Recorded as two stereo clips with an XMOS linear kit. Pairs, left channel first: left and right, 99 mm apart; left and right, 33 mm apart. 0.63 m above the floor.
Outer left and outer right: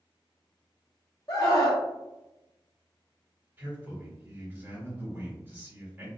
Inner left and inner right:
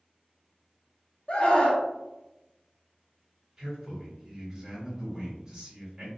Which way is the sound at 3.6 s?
20° right (ahead or behind).